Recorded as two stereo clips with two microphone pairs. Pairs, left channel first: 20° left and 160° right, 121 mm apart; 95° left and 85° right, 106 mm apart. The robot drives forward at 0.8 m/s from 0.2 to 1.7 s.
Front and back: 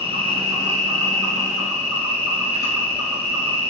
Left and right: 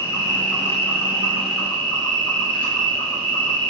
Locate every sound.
0.0 s an insect: 160° left, 1.2 m; by 3.7 s 170° left, 2.5 m